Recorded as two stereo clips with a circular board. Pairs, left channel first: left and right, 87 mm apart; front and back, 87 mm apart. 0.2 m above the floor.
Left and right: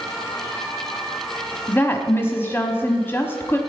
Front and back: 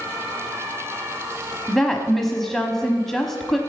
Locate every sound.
1.7 s a woman speaking: 80° left, 1.0 m